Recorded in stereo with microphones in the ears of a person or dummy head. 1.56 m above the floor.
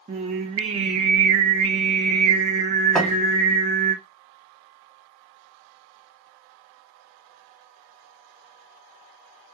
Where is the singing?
30° right (ahead or behind), 0.6 m.